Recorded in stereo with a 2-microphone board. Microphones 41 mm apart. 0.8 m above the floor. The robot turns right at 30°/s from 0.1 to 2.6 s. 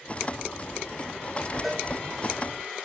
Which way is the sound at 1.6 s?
Centre (ahead or behind).